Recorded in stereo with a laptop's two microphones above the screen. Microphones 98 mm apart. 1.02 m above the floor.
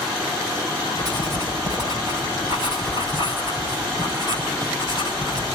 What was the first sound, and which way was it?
Writing, 50° right (ahead or behind).